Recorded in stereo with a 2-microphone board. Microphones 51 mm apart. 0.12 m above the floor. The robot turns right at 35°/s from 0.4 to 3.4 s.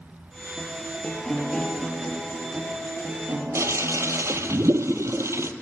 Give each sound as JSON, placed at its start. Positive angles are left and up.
{"t": 0.6, "sound": "a guitar", "azimuth_deg": 145, "distance_m": 3.0}
{"t": 3.5, "sound": "a toilet flushing", "side_deg": -70, "distance_m": 0.6}